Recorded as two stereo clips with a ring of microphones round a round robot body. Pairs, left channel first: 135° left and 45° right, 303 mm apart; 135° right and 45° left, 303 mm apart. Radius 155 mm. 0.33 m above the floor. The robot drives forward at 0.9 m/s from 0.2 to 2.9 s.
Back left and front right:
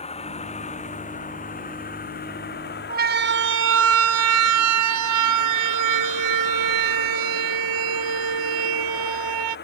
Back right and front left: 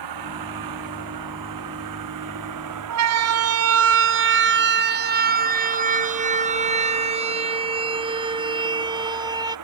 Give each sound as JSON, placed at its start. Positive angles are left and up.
{"t": 0.0, "sound": "a vehicle", "azimuth_deg": 65}
{"t": 2.9, "sound": "a siren", "azimuth_deg": 15}